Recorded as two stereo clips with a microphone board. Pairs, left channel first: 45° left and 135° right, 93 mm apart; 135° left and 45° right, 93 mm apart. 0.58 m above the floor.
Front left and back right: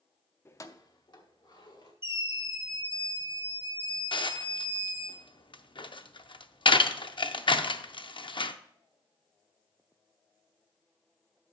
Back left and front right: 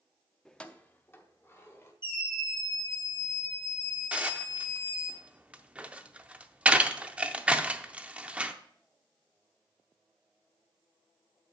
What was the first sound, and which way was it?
Keys jangling, 55° left.